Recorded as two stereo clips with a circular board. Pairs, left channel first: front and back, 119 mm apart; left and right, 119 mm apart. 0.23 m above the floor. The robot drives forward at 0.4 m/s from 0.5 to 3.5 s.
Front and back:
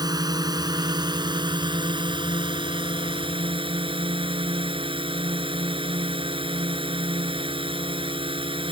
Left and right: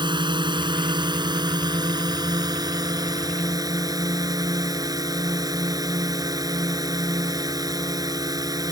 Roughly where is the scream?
No scream in this recording.